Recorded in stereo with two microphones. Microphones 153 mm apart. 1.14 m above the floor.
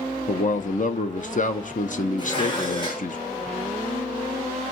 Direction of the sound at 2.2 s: 30° left (ahead or behind).